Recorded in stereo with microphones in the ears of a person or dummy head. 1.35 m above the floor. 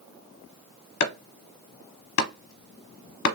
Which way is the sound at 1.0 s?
60° left (ahead or behind).